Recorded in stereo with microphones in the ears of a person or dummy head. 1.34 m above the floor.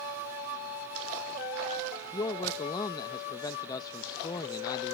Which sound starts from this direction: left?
A man speaking, at 2.1 s.